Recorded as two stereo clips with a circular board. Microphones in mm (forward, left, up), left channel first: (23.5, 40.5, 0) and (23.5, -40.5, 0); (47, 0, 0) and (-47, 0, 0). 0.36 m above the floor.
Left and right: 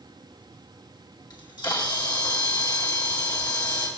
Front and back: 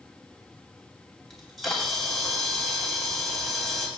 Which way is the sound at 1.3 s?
90° left.